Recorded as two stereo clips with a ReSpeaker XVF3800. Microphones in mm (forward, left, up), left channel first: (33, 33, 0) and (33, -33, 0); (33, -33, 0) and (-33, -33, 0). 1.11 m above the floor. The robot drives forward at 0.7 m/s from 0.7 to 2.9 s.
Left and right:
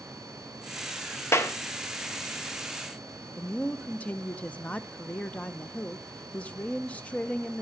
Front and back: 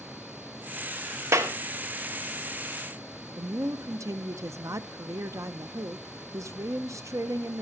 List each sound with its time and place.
1.3 s a clap: 140° left, 1.1 m; by 1.5 s 145° left, 1.2 m
3.4 s a woman speaking: 155° left, 0.8 m